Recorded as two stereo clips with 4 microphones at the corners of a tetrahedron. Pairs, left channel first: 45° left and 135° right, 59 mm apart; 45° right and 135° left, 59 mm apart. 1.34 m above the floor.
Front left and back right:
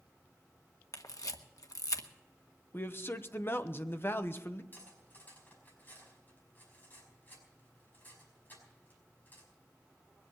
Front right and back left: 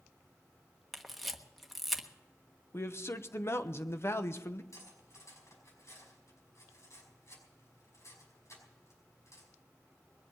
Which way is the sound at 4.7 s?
15° right.